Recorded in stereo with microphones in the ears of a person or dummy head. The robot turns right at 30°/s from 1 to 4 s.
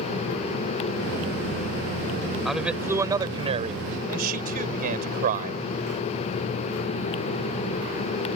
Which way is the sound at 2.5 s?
Straight behind.